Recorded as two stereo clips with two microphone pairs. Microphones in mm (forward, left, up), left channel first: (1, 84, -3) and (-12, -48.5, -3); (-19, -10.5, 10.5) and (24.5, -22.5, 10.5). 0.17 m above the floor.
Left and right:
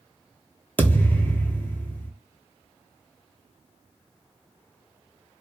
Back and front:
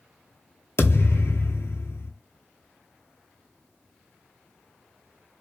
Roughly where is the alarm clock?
I don't hear an alarm clock.